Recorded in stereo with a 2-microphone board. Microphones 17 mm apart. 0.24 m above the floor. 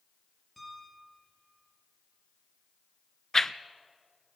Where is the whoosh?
25° left (ahead or behind), 0.5 m.